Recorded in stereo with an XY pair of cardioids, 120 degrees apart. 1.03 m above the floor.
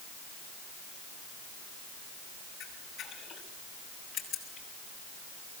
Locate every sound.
2.6 s a camera shutter: 45° left, 7.5 m